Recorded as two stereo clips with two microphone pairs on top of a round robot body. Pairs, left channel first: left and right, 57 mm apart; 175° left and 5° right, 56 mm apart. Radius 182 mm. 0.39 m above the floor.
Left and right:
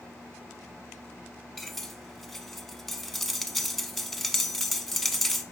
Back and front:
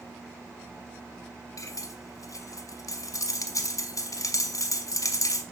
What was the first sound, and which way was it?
Cutlery clinking, 175° left.